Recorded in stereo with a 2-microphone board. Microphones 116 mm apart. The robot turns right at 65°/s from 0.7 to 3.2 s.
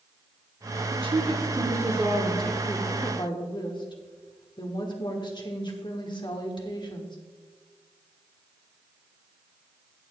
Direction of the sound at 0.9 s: 85° right.